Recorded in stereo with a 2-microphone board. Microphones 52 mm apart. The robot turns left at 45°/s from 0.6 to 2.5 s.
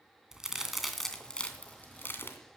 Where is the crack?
10° right (ahead or behind), 2.5 m; by 2.4 s 50° left (ahead or behind), 2.5 m.